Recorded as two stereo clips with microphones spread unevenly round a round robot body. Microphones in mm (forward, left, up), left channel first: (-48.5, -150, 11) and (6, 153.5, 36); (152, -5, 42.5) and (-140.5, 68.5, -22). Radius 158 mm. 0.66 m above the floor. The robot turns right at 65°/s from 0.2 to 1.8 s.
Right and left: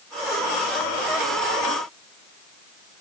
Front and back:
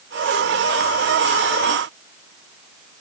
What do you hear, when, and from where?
Only background noise.